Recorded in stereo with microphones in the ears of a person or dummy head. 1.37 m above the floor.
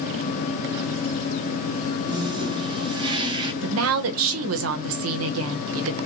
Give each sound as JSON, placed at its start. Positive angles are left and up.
{"t": 2.1, "sound": "a toilet flushing", "side_deg": -25, "distance_m": 1.0}
{"t": 3.6, "sound": "a woman speaking", "side_deg": -75, "distance_m": 0.8}